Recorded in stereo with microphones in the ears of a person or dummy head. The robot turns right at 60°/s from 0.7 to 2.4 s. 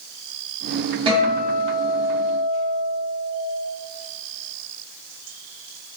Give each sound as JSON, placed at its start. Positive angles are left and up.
{"t": 1.1, "sound": "a guitar", "azimuth_deg": -25, "distance_m": 1.3}